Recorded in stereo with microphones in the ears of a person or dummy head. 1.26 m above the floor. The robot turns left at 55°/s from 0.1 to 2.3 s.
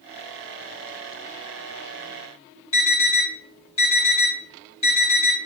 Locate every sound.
2.7 s an alarm: 25° left (ahead or behind), 1.5 m